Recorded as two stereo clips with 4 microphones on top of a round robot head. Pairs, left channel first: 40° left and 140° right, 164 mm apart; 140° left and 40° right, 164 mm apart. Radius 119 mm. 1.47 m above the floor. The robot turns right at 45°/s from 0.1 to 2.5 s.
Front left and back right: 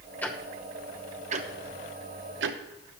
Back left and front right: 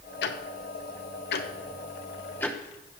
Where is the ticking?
120° left, 0.8 m; by 3.0 s 140° right, 0.8 m.